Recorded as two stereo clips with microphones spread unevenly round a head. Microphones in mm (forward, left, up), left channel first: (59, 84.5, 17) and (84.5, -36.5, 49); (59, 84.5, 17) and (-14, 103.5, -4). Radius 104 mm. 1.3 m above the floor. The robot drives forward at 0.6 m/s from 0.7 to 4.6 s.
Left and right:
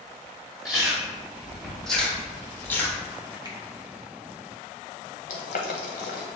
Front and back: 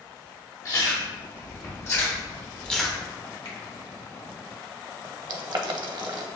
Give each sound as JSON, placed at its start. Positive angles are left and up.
{"t": 0.7, "sound": "chewing", "azimuth_deg": 5, "distance_m": 1.6}
{"t": 3.5, "sound": "a finger snap", "azimuth_deg": -20, "distance_m": 1.1}
{"t": 5.3, "sound": "boiling", "azimuth_deg": 150, "distance_m": 0.5}